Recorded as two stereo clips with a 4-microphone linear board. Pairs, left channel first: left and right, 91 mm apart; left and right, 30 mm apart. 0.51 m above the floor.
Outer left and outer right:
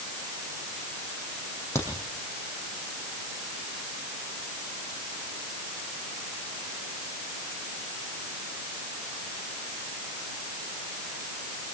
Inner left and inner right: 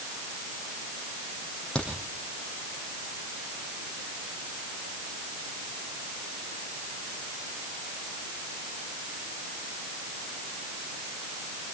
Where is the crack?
30° left (ahead or behind), 8.5 m.